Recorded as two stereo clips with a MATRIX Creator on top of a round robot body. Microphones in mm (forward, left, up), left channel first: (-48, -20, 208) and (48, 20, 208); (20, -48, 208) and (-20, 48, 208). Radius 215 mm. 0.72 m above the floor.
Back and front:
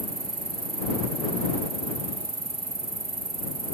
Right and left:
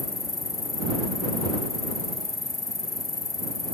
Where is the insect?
10° right.